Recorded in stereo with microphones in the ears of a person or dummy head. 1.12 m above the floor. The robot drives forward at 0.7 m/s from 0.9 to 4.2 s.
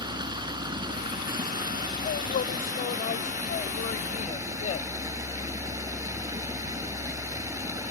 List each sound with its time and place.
0.0 s running water: 25° right (ahead or behind); by 7.9 s 15° right (ahead or behind)
2.0 s a woman speaking: 45° left (ahead or behind); by 4.9 s 35° left (ahead or behind)